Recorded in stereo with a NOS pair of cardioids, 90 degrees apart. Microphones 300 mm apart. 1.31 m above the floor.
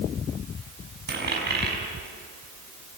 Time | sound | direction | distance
1.1 | a dropped coin | 35° right | 5.5 m